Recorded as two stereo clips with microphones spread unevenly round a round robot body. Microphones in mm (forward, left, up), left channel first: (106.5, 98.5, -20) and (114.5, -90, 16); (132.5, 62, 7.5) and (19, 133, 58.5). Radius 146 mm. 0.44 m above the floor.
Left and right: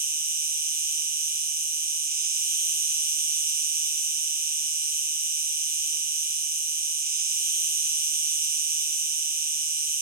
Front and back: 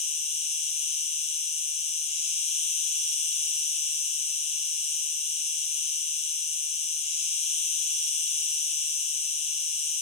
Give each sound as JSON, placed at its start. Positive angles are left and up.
{"t": 0.0, "sound": "an insect", "azimuth_deg": -40, "distance_m": 1.1}